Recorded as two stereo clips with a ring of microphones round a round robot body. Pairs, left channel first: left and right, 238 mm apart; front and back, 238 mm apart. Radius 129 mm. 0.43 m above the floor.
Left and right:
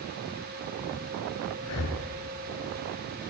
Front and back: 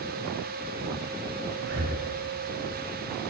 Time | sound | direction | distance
1.6 | breathing | 130° left | 0.5 m